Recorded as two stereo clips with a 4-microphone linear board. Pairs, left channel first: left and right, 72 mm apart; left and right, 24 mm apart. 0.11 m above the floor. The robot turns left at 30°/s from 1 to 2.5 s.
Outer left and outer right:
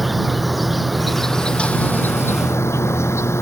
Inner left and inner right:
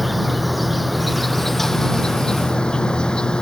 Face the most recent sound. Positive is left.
turn(degrees=135)